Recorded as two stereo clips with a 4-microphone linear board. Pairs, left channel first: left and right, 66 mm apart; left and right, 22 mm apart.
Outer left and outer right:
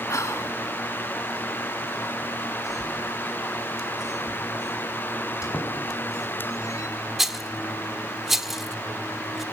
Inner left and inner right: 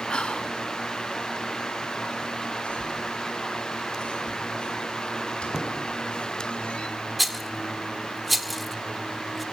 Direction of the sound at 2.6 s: 55° left (ahead or behind).